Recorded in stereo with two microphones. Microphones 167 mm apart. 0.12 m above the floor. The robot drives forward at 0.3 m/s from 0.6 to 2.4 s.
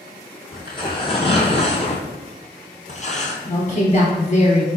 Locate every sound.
0.5 s tearing paper: 25° left (ahead or behind), 1.3 m; by 3.4 s 40° left (ahead or behind), 0.9 m
3.5 s a woman speaking: 40° left (ahead or behind), 1.7 m